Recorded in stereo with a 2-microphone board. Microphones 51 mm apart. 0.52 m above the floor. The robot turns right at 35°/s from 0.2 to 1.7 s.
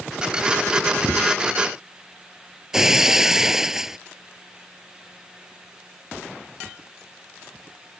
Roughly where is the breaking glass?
Centre.